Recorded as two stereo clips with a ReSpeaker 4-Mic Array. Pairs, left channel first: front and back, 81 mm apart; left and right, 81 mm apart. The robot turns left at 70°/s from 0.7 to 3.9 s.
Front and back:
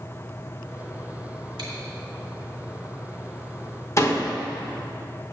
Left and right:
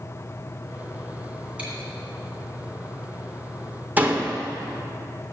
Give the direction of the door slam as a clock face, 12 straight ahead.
1 o'clock.